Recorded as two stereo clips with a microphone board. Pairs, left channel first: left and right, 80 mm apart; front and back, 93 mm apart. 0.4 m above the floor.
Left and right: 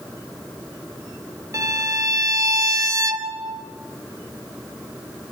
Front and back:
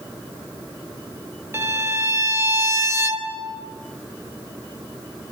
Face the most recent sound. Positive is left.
turn(degrees=-125)